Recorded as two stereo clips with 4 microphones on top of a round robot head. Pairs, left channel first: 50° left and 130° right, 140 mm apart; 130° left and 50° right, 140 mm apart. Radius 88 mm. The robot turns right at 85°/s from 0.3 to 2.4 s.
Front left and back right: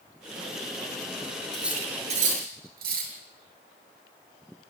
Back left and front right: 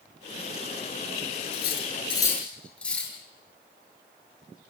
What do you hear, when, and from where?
1.5 s cutlery clinking: 135° left, 8 m; by 3.1 s 150° right, 8 m